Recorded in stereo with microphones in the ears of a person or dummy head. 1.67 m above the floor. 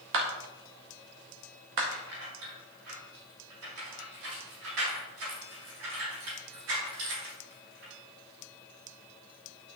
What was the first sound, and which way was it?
A clap, 70° right (ahead or behind).